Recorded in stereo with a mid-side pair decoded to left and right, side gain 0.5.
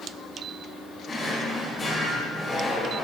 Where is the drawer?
45° left, 3 m.